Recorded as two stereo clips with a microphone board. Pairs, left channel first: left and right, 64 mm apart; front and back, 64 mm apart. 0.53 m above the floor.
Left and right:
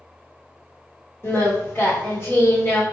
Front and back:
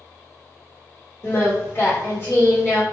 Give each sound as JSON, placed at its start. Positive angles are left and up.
{"t": 1.2, "sound": "singing", "azimuth_deg": 40, "distance_m": 1.8}